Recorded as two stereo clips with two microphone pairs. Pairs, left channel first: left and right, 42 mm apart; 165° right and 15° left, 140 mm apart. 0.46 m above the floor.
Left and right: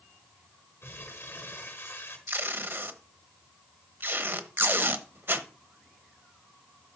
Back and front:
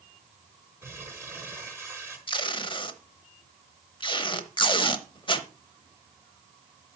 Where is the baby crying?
No baby crying in this recording.